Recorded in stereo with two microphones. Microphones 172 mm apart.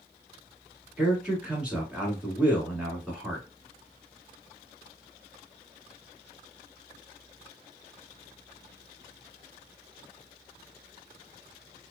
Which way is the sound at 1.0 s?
5° right (ahead or behind).